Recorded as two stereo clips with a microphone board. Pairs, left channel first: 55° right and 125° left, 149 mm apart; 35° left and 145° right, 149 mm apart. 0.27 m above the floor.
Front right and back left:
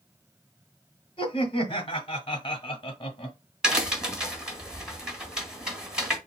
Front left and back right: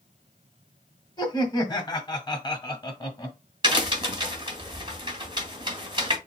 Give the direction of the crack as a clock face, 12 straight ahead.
5 o'clock.